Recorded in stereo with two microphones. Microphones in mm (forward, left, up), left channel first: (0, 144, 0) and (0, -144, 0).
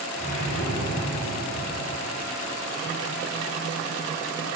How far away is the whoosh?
About 4.5 m.